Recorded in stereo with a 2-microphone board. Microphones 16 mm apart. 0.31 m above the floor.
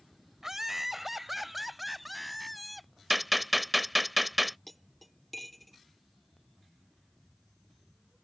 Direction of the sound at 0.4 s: 30° right (ahead or behind).